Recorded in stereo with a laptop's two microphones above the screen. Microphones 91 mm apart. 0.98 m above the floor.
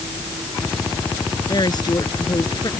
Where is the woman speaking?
50° left (ahead or behind).